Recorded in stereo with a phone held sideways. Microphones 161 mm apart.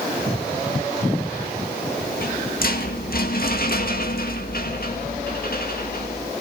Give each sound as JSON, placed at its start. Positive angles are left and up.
{"t": 2.0, "sound": "a rattle", "side_deg": 60, "distance_m": 2.0}